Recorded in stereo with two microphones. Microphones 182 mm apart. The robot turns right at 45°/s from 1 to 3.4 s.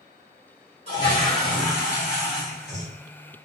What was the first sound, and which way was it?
A toilet flushing, 140° right.